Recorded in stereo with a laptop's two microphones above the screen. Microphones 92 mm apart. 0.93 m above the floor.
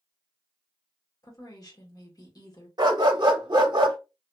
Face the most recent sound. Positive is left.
turn(degrees=-50)  # may be behind; listen again after turning